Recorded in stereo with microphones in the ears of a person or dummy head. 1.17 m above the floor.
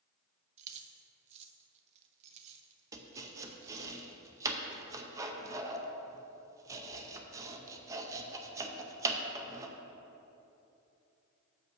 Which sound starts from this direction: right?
Keys jangling, at 0.6 s.